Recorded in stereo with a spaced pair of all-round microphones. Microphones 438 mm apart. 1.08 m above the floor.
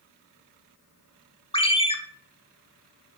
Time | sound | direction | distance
1.5 | a ringtone | 15° left (ahead or behind) | 1.0 m